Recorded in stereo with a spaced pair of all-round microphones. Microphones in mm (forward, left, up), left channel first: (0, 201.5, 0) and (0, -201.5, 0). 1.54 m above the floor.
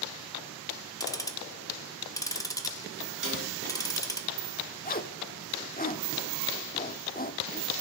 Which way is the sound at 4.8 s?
25° left (ahead or behind).